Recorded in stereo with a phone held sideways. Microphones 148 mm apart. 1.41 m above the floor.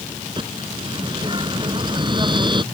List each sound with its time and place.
0.4 s a bird: 30° right (ahead or behind)